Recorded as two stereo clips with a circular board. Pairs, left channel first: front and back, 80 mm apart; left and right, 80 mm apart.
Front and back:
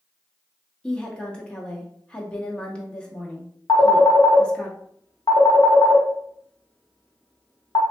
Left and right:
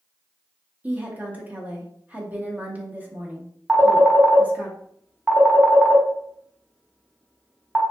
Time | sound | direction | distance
0.8 | a woman speaking | 60° right | 0.7 m
3.7 | a phone ringing | 10° right | 0.7 m